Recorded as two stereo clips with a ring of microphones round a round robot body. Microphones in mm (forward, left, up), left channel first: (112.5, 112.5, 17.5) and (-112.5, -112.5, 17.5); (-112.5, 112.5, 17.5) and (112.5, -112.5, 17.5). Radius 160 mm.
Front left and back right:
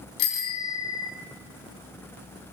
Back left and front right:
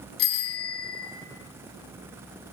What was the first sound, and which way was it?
A bicycle bell, 85° left.